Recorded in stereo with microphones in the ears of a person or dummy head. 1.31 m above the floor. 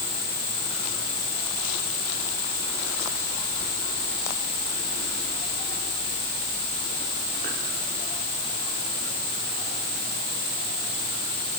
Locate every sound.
Only background noise.